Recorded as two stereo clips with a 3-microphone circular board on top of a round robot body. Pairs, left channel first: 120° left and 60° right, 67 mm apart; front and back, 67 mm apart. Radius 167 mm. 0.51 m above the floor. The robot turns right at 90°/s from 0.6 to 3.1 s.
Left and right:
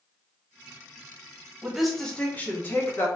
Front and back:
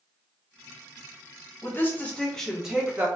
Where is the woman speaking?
10° left, 1.4 m; by 3.1 s 140° left, 1.4 m.